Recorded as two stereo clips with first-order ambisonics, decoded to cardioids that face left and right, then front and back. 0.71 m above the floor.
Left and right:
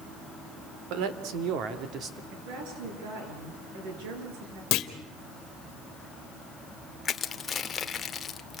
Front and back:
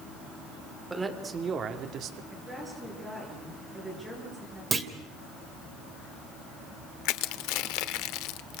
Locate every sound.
0.9 s a man speaking: 100° right, 2.5 m; by 2.2 s 150° right, 1.7 m
2.3 s a woman speaking: 90° right, 10 m
4.7 s a clunk: 110° left, 1.8 m
7.0 s crushing: 20° left, 1.0 m